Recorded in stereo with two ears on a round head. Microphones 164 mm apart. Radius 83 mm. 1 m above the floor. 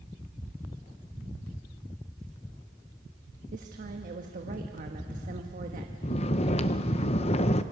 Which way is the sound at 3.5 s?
45° right (ahead or behind).